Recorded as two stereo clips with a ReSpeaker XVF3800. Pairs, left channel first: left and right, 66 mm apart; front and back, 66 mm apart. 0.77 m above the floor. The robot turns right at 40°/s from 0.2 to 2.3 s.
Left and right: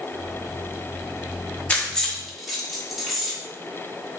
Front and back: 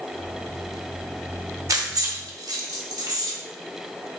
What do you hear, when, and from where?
1.7 s keys jangling: 160° left, 0.9 m; by 3.3 s straight behind, 0.9 m